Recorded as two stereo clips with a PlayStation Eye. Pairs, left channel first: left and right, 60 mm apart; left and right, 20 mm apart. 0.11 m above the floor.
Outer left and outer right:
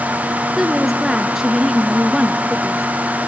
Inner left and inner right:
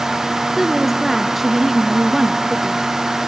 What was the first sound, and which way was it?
A woman speaking, 5° right (ahead or behind).